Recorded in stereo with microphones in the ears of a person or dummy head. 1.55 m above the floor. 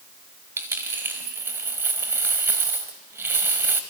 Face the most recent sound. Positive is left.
turn(degrees=-10)  # may be behind; listen again after turning